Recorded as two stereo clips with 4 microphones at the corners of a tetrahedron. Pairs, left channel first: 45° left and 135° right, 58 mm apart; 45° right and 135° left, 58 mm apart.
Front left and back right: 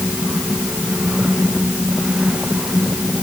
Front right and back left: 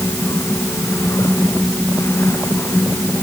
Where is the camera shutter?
No camera shutter in this recording.